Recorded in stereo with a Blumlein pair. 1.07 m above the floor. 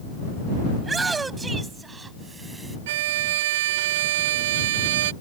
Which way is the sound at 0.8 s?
15° right.